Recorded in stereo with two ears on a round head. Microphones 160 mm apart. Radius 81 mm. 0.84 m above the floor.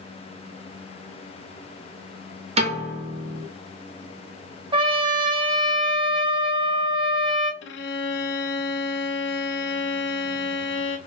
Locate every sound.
2.6 s a piano: 35° right (ahead or behind), 1.3 m
4.7 s a trumpet: 30° right (ahead or behind), 0.7 m
7.6 s a violin: 65° left (ahead or behind), 0.5 m